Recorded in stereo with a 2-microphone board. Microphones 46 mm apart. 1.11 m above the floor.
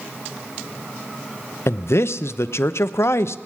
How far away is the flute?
No flute in this recording.